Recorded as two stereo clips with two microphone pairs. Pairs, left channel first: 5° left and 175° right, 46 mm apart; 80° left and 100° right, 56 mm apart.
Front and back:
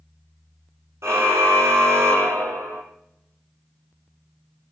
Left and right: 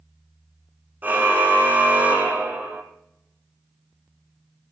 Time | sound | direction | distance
1.0 | a car horn | 160° right | 4 m